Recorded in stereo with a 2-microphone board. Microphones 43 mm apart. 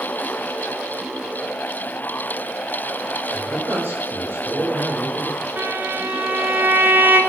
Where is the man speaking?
60° right (ahead or behind), 5 m.